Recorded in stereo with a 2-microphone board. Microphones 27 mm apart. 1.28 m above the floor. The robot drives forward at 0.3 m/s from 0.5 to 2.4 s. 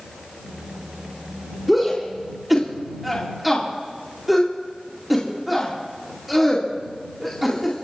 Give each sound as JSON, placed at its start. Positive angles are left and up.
{"t": 1.7, "sound": "a shout", "side_deg": 0, "distance_m": 2.5}